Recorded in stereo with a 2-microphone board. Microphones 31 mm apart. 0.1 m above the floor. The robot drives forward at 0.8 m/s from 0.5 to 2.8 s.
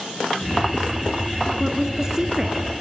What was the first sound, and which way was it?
A woman speaking, 20° right (ahead or behind).